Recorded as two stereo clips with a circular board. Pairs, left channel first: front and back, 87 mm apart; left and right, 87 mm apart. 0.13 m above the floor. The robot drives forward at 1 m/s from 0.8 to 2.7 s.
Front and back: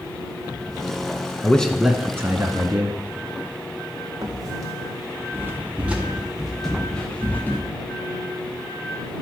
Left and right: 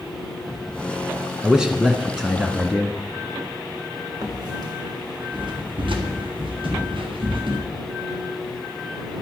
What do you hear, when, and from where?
1.4 s a man speaking: 25° right, 1.1 m; by 3.0 s 170° right, 1.4 m
4.2 s footsteps: 135° right, 3 m; by 7.6 s 70° right, 2.5 m